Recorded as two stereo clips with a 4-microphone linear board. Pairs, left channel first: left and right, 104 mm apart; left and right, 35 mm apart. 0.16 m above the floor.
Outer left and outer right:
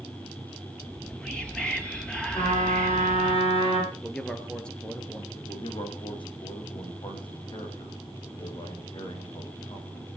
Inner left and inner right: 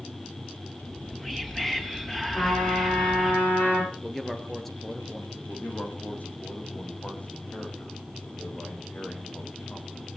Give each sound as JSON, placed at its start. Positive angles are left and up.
{"t": 0.8, "sound": "whispering", "side_deg": 10, "distance_m": 3.5}
{"t": 2.4, "sound": "a trumpet", "side_deg": 60, "distance_m": 9.5}
{"t": 3.9, "sound": "a man speaking", "side_deg": 10, "distance_m": 2.5}
{"t": 5.3, "sound": "a man speaking", "side_deg": 50, "distance_m": 8.0}